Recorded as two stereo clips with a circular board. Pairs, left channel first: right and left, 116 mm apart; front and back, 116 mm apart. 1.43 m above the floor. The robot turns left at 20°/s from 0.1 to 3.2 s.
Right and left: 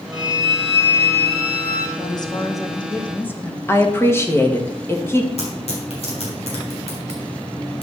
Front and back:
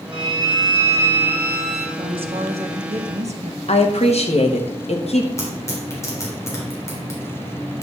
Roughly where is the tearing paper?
Ahead right.